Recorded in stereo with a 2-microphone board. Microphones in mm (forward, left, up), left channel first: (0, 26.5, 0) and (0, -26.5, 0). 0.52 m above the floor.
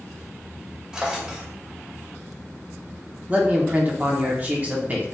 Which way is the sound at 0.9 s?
15° right (ahead or behind).